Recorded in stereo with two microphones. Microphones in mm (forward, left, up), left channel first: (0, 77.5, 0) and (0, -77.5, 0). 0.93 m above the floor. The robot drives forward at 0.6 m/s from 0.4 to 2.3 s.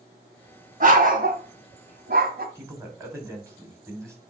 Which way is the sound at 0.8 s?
55° right (ahead or behind).